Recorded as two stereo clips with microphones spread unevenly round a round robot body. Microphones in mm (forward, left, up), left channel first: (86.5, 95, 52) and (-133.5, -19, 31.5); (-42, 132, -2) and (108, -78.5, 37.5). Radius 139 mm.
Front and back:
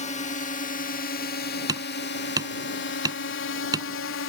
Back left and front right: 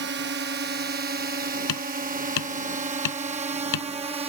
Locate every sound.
0.0 s a drone: 25° right; by 4.3 s 15° left
1.7 s hammering: 130° left